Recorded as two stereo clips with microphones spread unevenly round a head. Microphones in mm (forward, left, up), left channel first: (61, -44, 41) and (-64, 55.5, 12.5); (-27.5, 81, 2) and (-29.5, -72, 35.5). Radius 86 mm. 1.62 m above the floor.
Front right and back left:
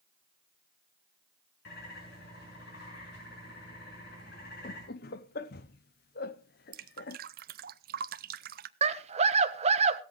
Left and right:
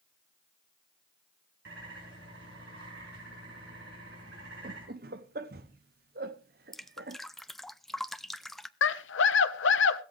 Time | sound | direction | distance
1.6 | a bird | 65° right | 5.5 m
4.6 | laughter | 65° right | 0.7 m
6.7 | dripping | 175° right | 0.6 m
8.8 | a scream | 85° left | 1.3 m